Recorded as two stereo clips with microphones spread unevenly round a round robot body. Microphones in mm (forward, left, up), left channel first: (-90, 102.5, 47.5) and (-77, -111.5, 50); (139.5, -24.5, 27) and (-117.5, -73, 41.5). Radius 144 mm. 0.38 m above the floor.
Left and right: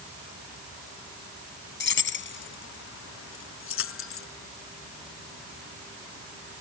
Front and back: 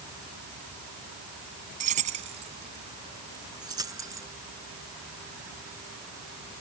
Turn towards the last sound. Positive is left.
turn(degrees=110)